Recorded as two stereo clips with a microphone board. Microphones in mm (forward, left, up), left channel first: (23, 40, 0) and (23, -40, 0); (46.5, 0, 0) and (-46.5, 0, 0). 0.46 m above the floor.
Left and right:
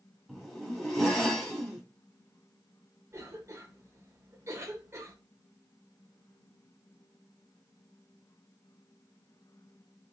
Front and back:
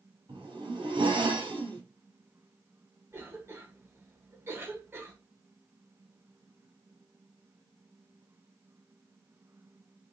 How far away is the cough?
About 1.1 m.